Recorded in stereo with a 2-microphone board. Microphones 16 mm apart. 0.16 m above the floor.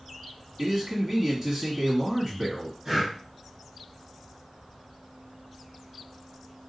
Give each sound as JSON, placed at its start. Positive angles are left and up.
{"t": 0.6, "sound": "a man speaking", "side_deg": -10, "distance_m": 1.3}
{"t": 2.9, "sound": "breathing", "side_deg": -30, "distance_m": 2.5}